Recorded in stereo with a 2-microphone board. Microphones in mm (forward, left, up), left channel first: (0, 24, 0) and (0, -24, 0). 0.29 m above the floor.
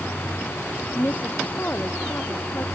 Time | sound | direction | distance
0.9 | a woman speaking | 35° left (ahead or behind) | ?